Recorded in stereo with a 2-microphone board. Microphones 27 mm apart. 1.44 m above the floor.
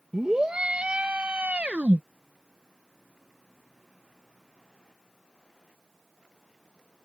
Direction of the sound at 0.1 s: 35° right (ahead or behind).